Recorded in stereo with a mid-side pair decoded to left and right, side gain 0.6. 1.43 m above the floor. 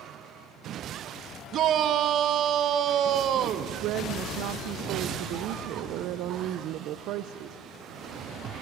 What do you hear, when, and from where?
1.5 s a shout: 55° right, 1.2 m
3.8 s a woman speaking: 65° right, 0.7 m